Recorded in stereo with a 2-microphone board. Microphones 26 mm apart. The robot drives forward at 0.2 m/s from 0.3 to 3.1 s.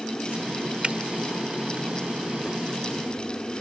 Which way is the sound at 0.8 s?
50° right (ahead or behind).